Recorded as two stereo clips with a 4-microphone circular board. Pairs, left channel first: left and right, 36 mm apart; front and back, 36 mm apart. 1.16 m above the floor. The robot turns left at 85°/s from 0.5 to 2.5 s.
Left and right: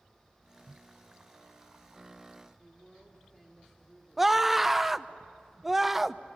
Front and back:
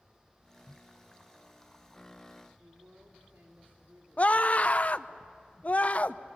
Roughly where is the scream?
Ahead.